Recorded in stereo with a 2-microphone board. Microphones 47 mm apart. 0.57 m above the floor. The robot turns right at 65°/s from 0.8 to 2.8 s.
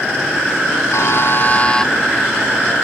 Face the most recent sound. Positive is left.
turn(degrees=-130)